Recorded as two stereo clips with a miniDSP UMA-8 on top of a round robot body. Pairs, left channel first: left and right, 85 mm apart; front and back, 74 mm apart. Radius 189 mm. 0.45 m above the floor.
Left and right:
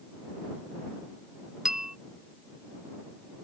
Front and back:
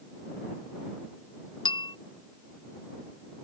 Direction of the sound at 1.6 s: 5° right.